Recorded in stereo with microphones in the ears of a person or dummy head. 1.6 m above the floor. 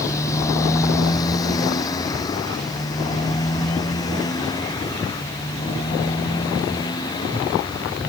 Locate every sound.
0.0 s a motorcycle: 20° left (ahead or behind); by 8.1 s 25° left (ahead or behind)